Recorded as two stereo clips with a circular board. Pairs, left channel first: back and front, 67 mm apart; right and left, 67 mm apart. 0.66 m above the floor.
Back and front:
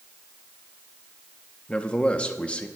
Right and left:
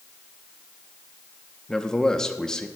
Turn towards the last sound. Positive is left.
turn(degrees=-150)